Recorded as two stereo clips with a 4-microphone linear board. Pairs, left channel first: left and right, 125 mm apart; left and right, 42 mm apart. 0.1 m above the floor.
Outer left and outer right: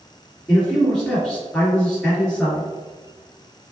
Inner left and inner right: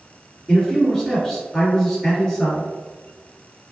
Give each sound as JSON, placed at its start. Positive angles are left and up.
{"t": 0.5, "sound": "a man speaking", "side_deg": 10, "distance_m": 2.0}